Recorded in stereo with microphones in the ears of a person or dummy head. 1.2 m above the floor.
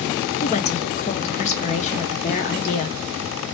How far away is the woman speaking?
About 0.5 m.